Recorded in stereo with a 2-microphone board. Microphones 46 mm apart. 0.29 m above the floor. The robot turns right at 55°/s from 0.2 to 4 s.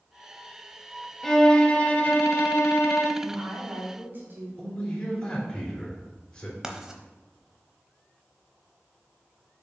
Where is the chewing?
I don't hear chewing.